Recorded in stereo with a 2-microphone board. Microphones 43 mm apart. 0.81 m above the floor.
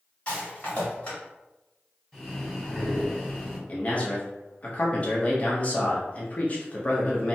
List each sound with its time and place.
0.3 s a rattle: 30° left (ahead or behind), 1.6 m
2.1 s breathing: 15° left (ahead or behind), 1.4 m
3.7 s a man speaking: 35° left (ahead or behind), 0.7 m